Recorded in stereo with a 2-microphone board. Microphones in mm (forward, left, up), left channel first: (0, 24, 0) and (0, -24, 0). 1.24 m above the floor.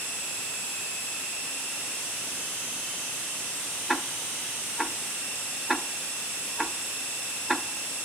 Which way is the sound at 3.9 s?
Centre (ahead or behind).